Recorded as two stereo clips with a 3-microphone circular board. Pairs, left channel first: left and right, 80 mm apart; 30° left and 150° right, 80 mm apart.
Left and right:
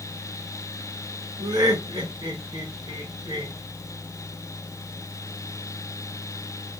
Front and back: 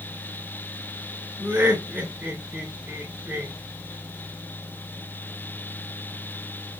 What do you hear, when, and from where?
1.4 s laughter: 80° right, 3.5 m